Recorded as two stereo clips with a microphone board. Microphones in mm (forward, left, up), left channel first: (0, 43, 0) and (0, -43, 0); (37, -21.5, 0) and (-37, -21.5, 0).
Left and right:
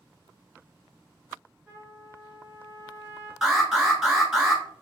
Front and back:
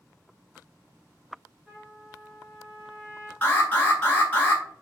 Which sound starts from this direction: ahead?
An alarm, at 3.4 s.